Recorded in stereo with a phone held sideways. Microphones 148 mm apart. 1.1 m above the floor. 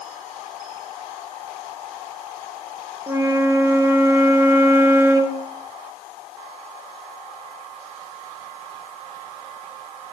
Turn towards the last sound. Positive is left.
turn(degrees=-20)  # may be behind; listen again after turning